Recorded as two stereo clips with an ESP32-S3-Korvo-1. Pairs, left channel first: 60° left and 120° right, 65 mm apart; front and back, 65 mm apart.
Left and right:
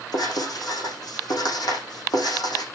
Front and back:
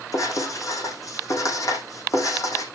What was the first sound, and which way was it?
Writing, 40° left.